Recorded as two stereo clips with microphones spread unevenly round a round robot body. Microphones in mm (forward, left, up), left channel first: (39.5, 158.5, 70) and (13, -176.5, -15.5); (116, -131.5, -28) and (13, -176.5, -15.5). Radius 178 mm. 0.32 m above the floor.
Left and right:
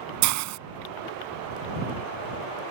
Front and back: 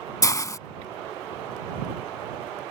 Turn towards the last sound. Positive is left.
turn(degrees=-45)